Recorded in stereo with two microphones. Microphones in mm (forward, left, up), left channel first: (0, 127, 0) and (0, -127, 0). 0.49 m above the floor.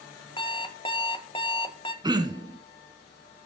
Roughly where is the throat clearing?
Centre.